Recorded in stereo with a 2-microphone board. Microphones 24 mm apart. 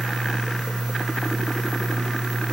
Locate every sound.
Only background noise.